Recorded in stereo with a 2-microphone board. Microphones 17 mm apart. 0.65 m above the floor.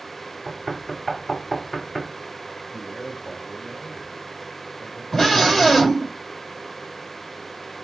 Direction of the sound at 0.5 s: 5° left (ahead or behind).